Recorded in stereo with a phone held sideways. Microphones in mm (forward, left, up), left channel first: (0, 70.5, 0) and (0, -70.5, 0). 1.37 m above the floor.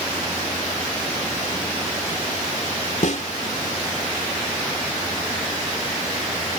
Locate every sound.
3.0 s a snare drum: 60° left (ahead or behind)